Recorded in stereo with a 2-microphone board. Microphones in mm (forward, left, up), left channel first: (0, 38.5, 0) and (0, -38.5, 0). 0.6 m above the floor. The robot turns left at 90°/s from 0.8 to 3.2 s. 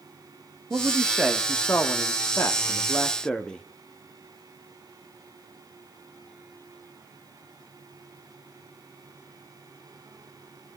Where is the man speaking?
130° right, 1.1 m; by 3.6 s 15° left, 1.1 m.